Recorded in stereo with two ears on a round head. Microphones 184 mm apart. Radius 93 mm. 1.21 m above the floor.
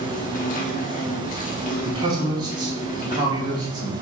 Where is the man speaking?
20° right (ahead or behind), 3.5 m.